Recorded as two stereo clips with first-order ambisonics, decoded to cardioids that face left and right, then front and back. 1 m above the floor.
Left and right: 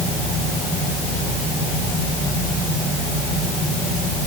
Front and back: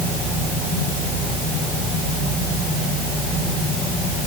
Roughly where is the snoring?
No snoring in this recording.